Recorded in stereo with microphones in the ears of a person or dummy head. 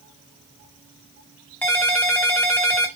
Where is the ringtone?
5° left (ahead or behind), 0.5 m.